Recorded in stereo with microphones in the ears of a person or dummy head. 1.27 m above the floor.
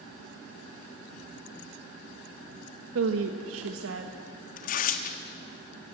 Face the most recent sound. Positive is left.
turn(degrees=50)  # may be behind; listen again after turning